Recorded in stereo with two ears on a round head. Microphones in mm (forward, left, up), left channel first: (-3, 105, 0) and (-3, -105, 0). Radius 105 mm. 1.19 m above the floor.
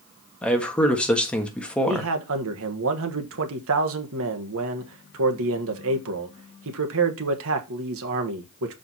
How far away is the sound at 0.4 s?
About 1.5 m.